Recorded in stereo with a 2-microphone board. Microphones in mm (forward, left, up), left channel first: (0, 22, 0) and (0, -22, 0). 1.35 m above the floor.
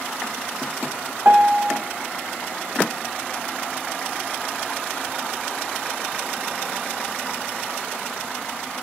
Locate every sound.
1.2 s a piano: 40° right (ahead or behind), 1.7 m